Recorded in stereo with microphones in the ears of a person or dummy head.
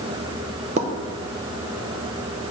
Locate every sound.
0.8 s a pop: 35° right (ahead or behind), 0.7 m